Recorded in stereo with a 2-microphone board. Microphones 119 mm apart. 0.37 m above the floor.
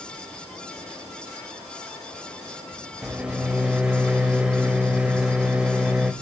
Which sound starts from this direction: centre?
A microwave, at 3.0 s.